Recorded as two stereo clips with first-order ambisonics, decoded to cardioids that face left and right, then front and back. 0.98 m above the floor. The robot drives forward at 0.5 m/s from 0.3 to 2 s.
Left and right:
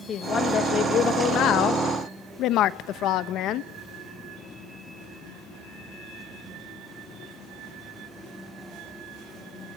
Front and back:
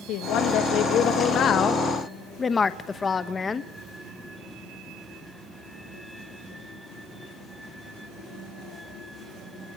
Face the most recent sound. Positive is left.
turn(degrees=65)